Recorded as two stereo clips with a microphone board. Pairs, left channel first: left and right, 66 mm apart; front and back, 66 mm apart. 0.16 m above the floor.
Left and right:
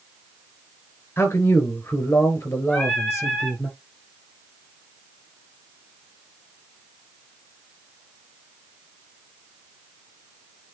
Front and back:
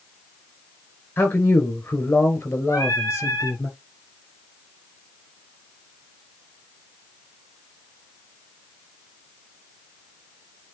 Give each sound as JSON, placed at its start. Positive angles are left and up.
{"t": 1.2, "sound": "a man speaking", "azimuth_deg": 45, "distance_m": 2.5}
{"t": 2.7, "sound": "singing", "azimuth_deg": 15, "distance_m": 3.0}